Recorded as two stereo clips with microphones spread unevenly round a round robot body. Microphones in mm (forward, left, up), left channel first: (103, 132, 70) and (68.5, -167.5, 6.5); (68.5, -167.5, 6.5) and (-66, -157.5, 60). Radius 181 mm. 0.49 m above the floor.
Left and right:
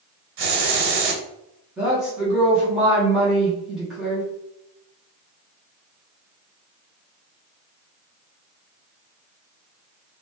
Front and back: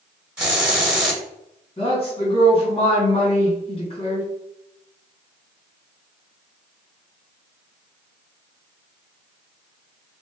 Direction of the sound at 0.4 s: 100° right.